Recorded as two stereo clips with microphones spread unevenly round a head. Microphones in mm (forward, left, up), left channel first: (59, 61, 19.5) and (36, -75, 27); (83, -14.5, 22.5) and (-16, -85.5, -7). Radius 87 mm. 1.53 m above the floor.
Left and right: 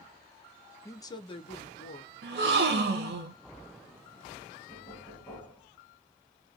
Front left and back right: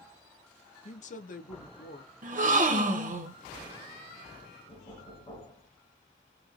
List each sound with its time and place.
0.8 s a woman speaking: 10° left, 1.1 m; by 2.1 s 55° left, 1.3 m
2.2 s a gasp: 125° right, 1.1 m
4.7 s knocking: straight ahead, 2.5 m